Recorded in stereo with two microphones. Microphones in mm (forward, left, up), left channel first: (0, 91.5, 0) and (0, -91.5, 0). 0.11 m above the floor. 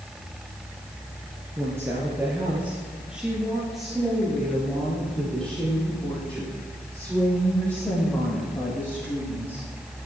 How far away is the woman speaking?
About 2.5 m.